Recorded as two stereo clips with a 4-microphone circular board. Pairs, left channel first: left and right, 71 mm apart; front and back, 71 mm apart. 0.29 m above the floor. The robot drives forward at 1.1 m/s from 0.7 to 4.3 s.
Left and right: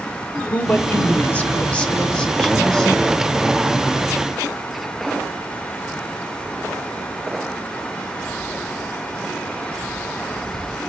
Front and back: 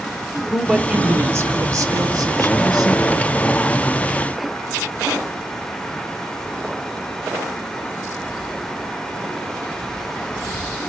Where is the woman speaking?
105° left, 1.1 m; by 3.4 s 170° left, 3 m.